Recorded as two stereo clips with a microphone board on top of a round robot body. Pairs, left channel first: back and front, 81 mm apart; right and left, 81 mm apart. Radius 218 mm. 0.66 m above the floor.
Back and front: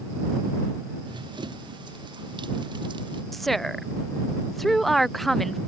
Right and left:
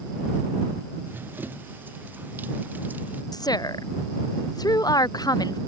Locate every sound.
1.1 s running footsteps: 25° left; by 3.2 s 20° left
3.3 s a woman speaking: 95° right